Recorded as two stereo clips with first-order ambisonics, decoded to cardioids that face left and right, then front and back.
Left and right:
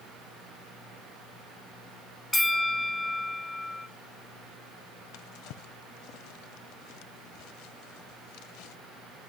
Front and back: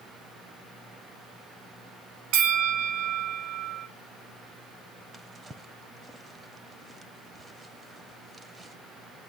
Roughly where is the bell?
Behind.